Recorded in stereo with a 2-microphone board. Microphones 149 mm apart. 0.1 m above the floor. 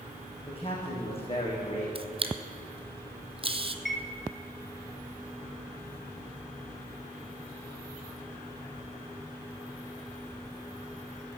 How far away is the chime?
About 0.7 m.